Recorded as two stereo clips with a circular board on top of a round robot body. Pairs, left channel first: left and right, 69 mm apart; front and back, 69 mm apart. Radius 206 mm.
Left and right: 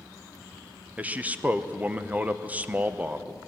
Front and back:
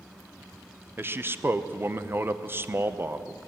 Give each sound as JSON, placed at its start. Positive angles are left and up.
{"t": 1.0, "sound": "a man speaking", "azimuth_deg": -145, "distance_m": 1.1}